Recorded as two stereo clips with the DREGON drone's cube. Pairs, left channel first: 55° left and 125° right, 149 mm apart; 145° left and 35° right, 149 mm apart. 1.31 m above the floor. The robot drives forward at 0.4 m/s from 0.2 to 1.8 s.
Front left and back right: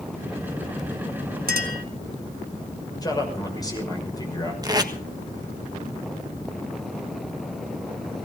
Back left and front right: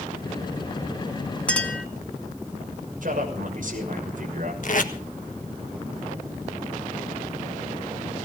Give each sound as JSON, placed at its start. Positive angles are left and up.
{"t": 1.5, "sound": "a clink", "azimuth_deg": -130, "distance_m": 1.6}
{"t": 3.0, "sound": "a man speaking", "azimuth_deg": -10, "distance_m": 6.0}
{"t": 4.6, "sound": "tape being pulled", "azimuth_deg": 170, "distance_m": 1.5}